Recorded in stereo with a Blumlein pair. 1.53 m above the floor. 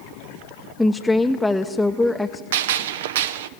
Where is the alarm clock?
I don't hear an alarm clock.